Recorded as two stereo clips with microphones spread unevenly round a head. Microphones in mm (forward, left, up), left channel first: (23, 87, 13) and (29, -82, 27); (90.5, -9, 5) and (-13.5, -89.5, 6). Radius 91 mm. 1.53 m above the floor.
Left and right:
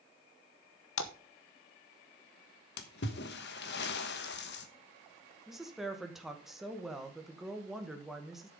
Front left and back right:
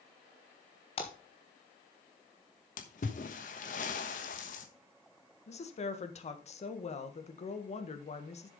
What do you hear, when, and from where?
1.0 s a splash: 100° left, 1.1 m
2.8 s a splash: 75° left, 1.2 m
5.5 s a woman speaking: straight ahead, 1.6 m